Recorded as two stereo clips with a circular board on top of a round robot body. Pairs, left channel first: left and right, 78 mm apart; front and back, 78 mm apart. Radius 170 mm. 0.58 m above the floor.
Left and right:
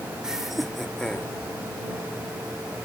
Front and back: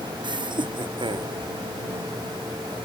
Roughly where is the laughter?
Behind.